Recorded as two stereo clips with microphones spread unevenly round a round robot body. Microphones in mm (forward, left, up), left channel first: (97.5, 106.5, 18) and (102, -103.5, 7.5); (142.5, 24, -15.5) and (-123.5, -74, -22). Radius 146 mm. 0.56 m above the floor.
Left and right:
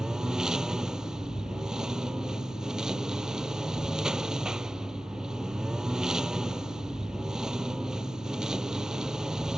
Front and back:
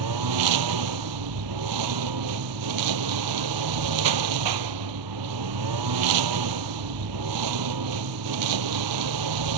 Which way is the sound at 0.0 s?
175° right.